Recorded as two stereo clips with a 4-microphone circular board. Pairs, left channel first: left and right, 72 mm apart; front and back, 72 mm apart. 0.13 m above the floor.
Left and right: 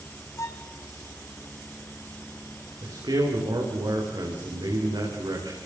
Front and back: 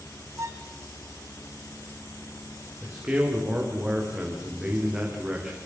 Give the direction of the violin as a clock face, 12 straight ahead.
7 o'clock.